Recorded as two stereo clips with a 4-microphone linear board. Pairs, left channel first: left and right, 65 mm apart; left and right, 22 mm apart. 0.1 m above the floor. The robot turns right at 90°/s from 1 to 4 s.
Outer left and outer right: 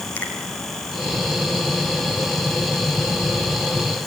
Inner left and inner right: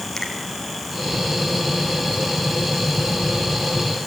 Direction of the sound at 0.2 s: 25° left (ahead or behind).